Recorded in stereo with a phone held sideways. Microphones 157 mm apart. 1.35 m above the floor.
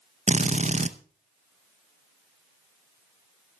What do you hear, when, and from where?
0.3 s a drill: 45° right (ahead or behind), 0.7 m